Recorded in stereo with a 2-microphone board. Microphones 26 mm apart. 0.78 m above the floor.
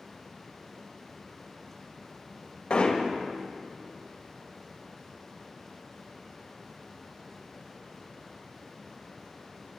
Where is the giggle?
I don't hear a giggle.